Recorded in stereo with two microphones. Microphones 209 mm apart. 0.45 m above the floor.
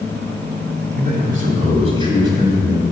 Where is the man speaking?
50° right (ahead or behind), 2 m; by 2.8 s 10° right (ahead or behind), 3 m.